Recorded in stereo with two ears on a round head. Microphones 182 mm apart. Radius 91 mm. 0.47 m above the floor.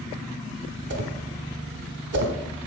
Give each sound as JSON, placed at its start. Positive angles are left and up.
{"t": 0.9, "sound": "a whoosh", "side_deg": -55, "distance_m": 1.0}